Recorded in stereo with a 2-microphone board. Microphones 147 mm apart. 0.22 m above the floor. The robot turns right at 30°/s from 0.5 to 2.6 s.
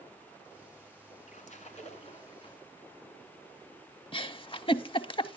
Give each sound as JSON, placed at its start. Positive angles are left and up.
{"t": 1.3, "sound": "a splash", "azimuth_deg": 95, "distance_m": 1.4}
{"t": 4.1, "sound": "a giggle", "side_deg": 40, "distance_m": 0.6}